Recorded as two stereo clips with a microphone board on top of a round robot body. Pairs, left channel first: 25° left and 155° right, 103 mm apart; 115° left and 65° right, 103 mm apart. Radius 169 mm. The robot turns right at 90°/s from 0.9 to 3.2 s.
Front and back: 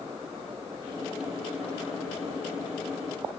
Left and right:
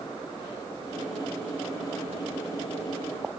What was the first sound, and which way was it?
Only background noise.